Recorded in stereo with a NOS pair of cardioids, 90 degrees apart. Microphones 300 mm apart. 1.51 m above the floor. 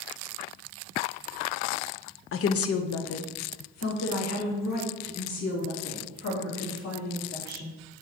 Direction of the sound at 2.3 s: 45° left.